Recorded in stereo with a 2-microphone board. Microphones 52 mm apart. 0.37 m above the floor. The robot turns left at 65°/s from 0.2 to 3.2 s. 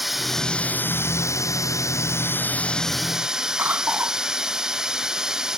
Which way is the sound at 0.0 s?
175° right.